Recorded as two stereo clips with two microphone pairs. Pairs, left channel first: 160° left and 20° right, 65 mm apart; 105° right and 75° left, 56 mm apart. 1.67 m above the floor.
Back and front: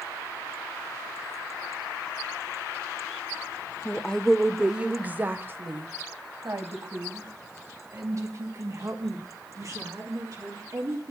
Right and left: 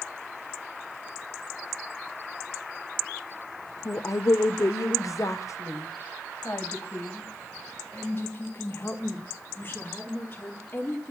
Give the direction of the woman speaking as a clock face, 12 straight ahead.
5 o'clock.